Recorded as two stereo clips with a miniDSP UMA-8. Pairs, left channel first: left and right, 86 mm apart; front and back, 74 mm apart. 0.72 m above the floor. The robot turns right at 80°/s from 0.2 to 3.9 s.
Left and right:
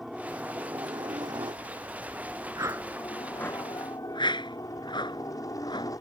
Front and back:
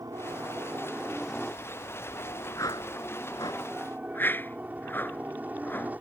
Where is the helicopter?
Straight behind; by 6.0 s 120° left.